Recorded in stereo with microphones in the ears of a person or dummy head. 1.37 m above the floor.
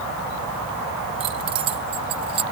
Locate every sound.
1.2 s keys jangling: 30° right (ahead or behind)